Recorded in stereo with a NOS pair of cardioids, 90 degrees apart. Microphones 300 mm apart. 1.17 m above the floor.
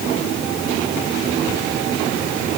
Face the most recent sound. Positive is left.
No sound to turn to.